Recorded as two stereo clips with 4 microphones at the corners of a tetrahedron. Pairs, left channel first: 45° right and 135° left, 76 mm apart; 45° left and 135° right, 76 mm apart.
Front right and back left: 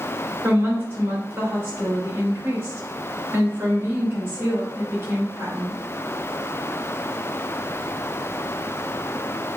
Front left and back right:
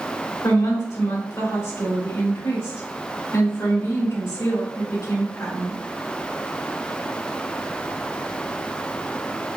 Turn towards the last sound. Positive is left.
turn(degrees=75)